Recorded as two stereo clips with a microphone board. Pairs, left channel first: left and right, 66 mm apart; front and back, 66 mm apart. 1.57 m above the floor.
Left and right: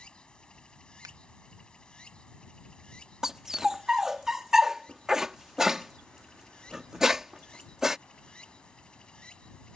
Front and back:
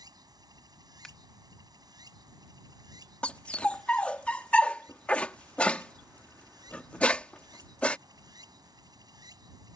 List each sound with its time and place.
0.0 s running water: 165° left
1.0 s scissors: 80° right
3.2 s a dog barking: 25° right